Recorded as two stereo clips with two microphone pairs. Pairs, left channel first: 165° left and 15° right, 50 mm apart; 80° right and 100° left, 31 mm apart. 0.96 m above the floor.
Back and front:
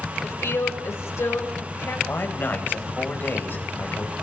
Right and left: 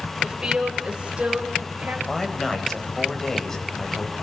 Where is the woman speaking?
170° left, 5.5 m; by 2.0 s 140° left, 5.5 m.